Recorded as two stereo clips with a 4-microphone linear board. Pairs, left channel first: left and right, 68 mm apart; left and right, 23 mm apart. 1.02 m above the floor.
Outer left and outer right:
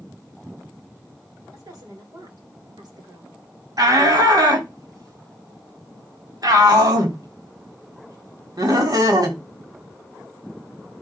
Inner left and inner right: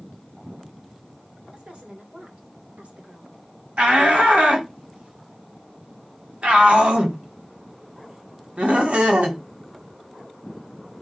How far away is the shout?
About 3.5 m.